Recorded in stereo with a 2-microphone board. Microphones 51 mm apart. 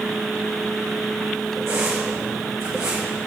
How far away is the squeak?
About 4.5 m.